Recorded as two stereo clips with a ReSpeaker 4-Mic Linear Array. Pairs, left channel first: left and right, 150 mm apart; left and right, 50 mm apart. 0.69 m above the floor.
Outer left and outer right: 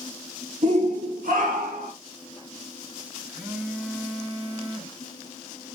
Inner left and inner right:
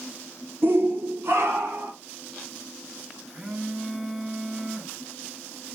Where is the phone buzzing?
10° right (ahead or behind), 0.8 m.